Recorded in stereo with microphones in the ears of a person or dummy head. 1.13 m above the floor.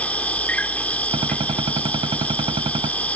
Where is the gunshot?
30° right (ahead or behind).